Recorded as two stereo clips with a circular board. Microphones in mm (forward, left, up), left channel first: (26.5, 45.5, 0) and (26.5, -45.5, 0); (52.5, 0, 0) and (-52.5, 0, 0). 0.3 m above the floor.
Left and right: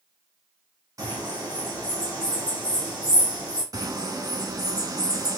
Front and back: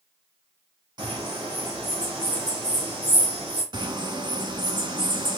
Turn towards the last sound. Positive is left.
turn(degrees=-135)